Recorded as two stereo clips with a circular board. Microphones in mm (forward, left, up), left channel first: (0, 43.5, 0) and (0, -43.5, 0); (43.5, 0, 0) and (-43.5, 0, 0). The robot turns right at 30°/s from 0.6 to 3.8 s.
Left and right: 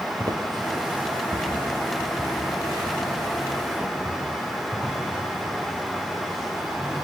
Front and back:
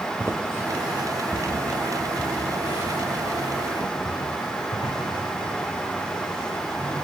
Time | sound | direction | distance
0.2 | footsteps | 120° right | 1.6 m